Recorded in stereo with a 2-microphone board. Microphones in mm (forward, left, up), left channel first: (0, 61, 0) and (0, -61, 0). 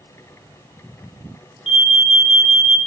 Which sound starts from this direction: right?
An alarm, at 1.7 s.